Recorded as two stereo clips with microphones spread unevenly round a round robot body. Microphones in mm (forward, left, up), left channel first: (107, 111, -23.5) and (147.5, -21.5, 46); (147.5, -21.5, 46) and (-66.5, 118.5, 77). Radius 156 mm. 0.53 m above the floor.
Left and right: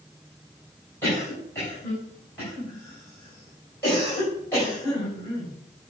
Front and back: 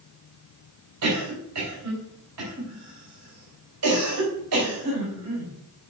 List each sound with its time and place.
1.0 s a cough: 175° left, 4 m